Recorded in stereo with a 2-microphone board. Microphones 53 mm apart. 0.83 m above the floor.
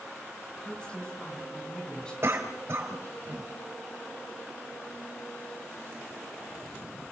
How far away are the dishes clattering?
I don't hear dishes clattering.